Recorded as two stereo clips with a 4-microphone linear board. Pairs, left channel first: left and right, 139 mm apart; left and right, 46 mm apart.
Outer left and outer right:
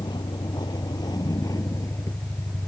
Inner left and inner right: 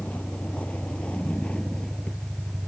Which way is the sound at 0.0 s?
35° left (ahead or behind).